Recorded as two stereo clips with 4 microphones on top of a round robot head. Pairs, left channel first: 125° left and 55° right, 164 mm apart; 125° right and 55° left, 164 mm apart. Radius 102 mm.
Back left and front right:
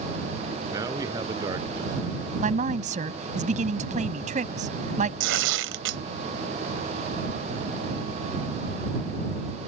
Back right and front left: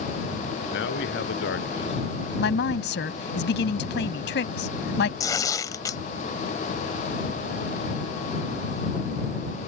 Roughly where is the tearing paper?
Ahead right.